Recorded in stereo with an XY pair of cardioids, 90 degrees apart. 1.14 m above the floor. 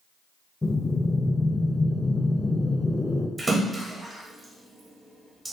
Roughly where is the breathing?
Ahead.